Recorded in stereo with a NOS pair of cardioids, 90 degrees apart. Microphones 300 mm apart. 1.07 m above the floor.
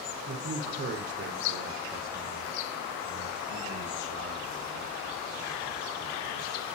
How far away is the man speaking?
About 3 m.